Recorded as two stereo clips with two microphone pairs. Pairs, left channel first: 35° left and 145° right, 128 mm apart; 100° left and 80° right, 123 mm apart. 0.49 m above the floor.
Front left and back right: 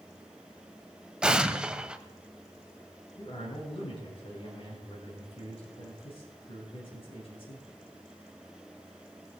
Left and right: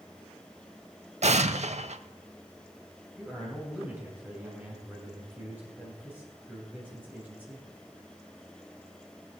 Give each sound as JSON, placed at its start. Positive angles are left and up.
{"t": 1.2, "sound": "an explosion", "azimuth_deg": -60, "distance_m": 0.5}
{"t": 3.2, "sound": "a man speaking", "azimuth_deg": -5, "distance_m": 2.5}